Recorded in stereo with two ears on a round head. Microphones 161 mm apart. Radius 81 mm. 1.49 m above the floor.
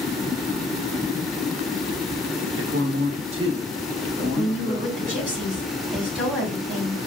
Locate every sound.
2.6 s a man speaking: 75° right (ahead or behind), 0.8 m; by 5.2 s 5° right (ahead or behind), 2 m
4.2 s a woman speaking: 10° right (ahead or behind), 2.5 m